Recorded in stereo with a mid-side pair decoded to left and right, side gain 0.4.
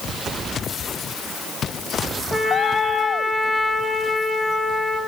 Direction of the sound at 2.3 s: 5° left.